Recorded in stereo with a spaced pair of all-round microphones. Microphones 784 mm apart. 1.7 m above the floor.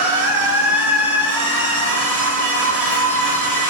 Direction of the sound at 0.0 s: 25° right (ahead or behind).